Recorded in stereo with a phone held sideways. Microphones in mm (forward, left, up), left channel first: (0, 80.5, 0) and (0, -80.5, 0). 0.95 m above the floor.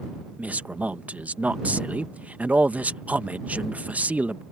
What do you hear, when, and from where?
0.4 s a man speaking: 10° right (ahead or behind)